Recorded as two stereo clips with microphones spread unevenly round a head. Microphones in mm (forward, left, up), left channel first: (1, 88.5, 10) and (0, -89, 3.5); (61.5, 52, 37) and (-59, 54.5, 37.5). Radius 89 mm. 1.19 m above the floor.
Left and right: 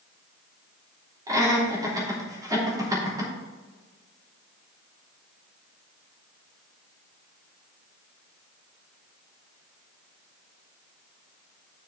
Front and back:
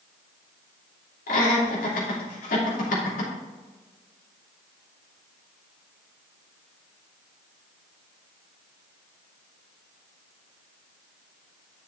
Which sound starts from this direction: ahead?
Laughter, at 1.3 s.